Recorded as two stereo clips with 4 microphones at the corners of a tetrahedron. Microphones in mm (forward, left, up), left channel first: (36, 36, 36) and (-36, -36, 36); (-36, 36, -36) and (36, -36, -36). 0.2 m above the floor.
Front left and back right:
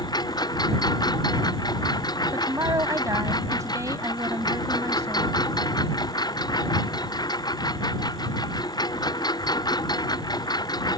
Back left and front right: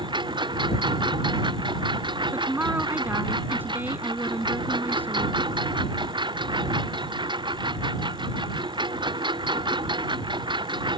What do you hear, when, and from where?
0.0 s a lawn mower: 5° right
2.3 s a woman speaking: 105° right